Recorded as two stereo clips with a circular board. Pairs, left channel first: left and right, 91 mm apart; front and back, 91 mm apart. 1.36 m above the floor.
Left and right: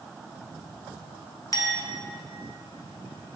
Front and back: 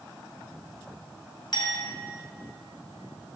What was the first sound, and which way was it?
A clink, 40° left.